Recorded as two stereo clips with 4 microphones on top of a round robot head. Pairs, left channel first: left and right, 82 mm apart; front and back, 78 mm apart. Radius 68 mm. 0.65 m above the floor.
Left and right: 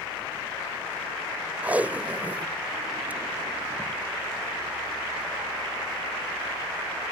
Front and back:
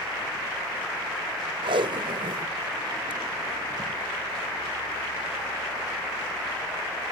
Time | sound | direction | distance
1.6 | tape being pulled | 165° right | ?